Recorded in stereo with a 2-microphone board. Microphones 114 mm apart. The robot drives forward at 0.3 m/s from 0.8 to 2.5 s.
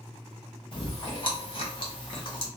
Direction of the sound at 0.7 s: 40° left (ahead or behind).